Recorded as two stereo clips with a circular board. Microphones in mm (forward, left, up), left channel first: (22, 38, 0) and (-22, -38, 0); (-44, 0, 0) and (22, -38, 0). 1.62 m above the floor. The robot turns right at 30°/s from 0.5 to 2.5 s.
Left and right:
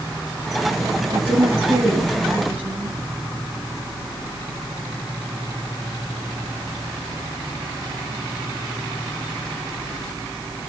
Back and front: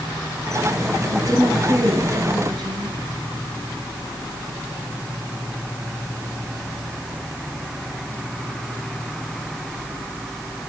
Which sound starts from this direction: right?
A woman speaking, at 1.1 s.